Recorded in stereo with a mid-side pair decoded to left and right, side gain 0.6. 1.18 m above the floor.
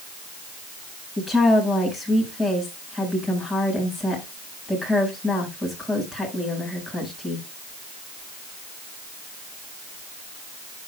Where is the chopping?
No chopping in this recording.